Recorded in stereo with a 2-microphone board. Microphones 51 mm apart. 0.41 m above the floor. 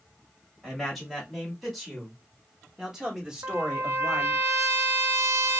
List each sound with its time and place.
0.6 s a man speaking: centre (ahead or behind), 1.8 m; by 4.4 s 20° right (ahead or behind), 1.2 m
3.4 s a trumpet: 75° right (ahead or behind), 0.5 m